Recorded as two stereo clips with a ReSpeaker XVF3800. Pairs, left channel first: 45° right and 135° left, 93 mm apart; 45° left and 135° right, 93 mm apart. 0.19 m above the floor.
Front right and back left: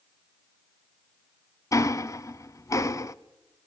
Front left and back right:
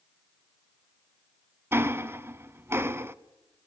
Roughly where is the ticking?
Right.